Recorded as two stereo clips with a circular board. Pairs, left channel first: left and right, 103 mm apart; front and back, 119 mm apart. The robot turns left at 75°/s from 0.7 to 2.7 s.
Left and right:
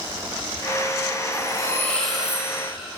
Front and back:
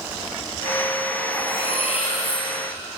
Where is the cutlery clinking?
60° left, 3 m; by 2.5 s 25° right, 3 m.